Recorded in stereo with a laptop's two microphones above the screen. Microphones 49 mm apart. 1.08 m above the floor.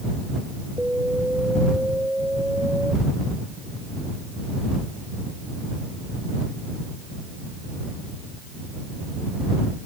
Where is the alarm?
25° right (ahead or behind).